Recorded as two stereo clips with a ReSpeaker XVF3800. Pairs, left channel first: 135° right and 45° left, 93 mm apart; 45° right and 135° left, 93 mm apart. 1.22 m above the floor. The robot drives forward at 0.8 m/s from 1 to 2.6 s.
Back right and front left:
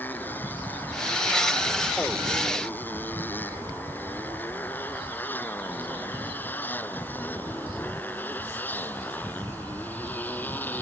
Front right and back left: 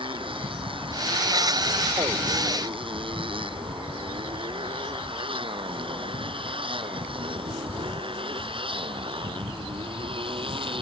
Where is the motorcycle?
155° left.